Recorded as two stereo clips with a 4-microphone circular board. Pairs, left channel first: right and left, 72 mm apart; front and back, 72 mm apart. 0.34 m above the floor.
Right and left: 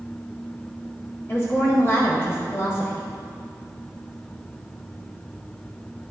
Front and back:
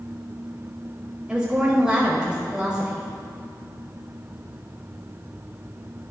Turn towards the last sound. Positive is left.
turn(degrees=-110)